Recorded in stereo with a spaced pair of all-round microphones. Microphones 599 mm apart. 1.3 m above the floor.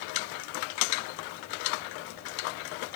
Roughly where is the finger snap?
No finger snap in this recording.